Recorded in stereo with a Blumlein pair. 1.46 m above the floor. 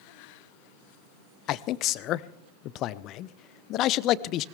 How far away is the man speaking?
About 0.7 m.